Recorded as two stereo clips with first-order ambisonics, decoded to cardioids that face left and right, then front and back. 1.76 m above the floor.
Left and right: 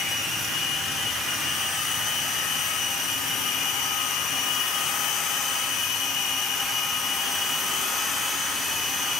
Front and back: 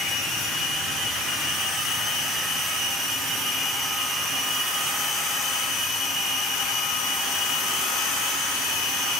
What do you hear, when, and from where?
Only background noise.